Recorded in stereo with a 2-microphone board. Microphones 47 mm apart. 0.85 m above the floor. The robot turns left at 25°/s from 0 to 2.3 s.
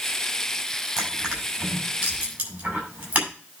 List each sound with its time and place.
1.0 s crushing: 5° right (ahead or behind), 5.5 m; by 3.3 s 35° right (ahead or behind), 5.5 m